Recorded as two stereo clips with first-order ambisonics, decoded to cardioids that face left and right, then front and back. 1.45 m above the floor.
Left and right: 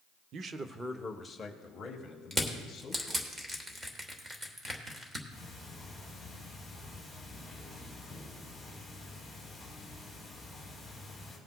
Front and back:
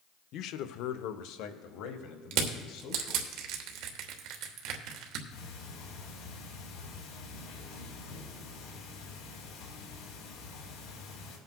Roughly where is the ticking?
Ahead.